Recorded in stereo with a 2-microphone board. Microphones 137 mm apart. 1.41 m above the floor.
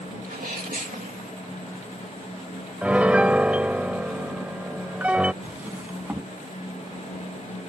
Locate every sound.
0.2 s a sneeze: 85° right
2.8 s a piano: 10° right (ahead or behind)
5.4 s a drawer: 10° right (ahead or behind)